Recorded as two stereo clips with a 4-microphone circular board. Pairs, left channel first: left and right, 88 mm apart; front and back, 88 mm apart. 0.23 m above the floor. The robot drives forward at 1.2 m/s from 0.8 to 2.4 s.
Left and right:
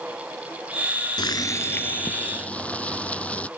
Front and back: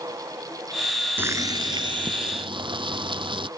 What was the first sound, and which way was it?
Boiling, 115° left.